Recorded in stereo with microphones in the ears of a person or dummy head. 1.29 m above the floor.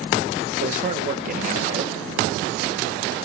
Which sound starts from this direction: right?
A man speaking, at 0.6 s.